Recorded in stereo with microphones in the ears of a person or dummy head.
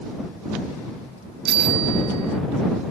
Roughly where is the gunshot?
No gunshot in this recording.